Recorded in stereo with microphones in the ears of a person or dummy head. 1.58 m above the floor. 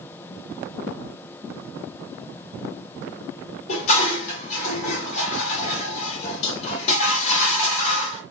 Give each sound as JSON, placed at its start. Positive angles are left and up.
{"t": 3.7, "sound": "dishes clattering", "side_deg": 40, "distance_m": 1.5}